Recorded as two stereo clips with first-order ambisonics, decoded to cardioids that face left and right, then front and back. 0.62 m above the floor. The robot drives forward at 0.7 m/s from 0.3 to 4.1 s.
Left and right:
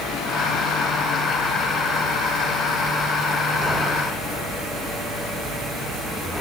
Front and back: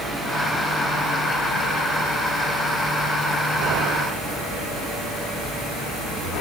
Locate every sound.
Only background noise.